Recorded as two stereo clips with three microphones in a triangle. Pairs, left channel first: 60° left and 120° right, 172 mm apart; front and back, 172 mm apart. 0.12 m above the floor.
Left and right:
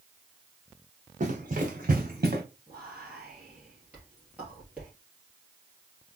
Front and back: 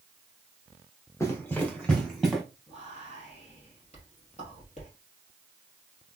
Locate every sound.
1.2 s running footsteps: 75° right, 1.2 m; by 2.4 s 90° right, 1.6 m
2.7 s whispering: 40° right, 2.5 m